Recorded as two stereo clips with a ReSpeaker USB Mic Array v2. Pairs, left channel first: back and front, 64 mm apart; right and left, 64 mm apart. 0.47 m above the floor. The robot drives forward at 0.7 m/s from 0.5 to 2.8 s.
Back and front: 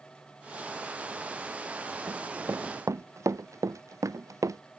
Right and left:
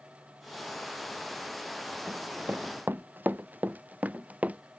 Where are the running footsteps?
40° left; by 4.6 s 25° left.